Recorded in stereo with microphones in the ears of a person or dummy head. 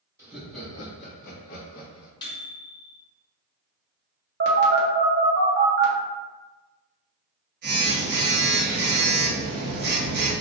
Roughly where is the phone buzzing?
Right.